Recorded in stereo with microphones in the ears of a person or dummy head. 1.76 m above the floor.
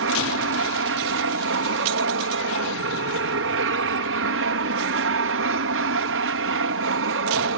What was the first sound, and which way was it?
An aircraft, 60° right (ahead or behind).